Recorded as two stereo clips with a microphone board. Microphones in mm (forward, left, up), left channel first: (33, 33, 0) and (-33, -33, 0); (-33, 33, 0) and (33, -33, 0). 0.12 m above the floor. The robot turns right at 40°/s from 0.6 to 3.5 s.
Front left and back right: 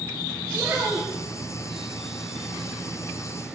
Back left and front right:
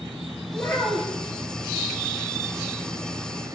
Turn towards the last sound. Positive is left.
turn(degrees=-60)